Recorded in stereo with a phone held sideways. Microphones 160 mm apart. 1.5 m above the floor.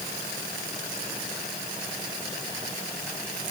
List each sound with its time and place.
Only background noise.